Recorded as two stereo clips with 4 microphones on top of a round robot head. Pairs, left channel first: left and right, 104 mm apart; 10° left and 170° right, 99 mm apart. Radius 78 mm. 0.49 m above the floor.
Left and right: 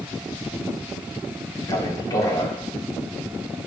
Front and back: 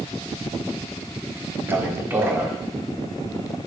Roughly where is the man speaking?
Behind left.